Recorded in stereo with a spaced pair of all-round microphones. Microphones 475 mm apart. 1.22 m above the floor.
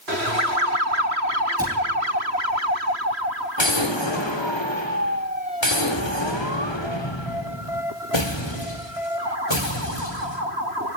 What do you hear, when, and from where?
1.6 s a cupboard door: 10° right (ahead or behind), 7.5 m
3.6 s an explosion: 65° left (ahead or behind), 3.5 m